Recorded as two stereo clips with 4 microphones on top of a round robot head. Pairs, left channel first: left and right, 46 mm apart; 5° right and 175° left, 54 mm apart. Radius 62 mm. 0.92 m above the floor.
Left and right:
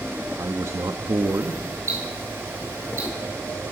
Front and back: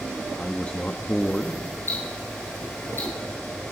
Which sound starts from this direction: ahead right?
Ticking, at 1.9 s.